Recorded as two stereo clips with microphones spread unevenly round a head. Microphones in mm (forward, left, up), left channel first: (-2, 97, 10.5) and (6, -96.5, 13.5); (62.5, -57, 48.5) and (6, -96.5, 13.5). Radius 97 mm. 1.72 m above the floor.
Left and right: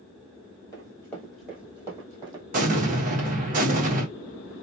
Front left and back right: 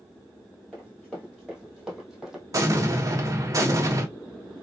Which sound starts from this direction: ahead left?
Running footsteps, at 0.7 s.